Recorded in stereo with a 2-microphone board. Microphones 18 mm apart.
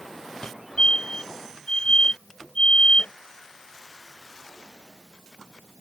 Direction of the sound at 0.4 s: 55° left (ahead or behind).